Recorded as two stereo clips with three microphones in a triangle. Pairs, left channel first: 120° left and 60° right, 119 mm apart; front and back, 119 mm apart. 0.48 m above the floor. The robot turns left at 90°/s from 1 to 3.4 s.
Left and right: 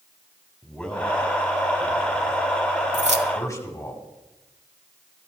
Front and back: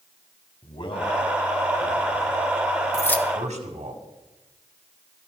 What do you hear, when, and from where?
0.6 s a man speaking: 40° left, 2.5 m; by 3.9 s 175° right, 2.5 m
2.9 s keys jangling: 55° right, 1.1 m; by 3.3 s 85° right, 1.1 m